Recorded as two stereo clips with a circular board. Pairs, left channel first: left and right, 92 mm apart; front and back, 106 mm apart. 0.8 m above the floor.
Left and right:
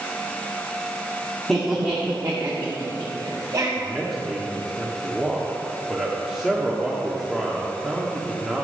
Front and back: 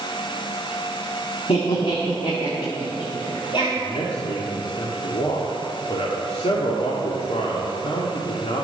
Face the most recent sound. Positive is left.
turn(degrees=-5)